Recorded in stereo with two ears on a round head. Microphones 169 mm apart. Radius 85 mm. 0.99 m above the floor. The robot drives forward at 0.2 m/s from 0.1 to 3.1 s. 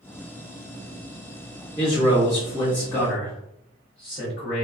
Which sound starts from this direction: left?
A man speaking, at 1.8 s.